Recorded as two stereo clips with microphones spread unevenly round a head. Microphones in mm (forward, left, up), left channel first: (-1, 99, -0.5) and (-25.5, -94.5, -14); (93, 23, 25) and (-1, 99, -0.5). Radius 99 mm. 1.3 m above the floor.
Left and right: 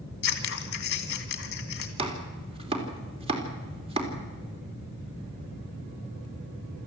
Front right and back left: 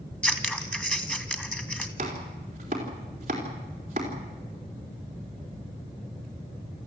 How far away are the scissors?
About 2.5 m.